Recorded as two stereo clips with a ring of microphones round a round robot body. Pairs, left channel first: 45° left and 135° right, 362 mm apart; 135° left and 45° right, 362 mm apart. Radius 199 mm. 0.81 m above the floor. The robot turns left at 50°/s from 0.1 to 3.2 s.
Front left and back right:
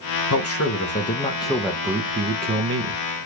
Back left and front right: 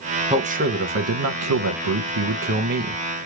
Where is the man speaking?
25° left, 0.7 m; by 3.0 s 110° right, 0.7 m.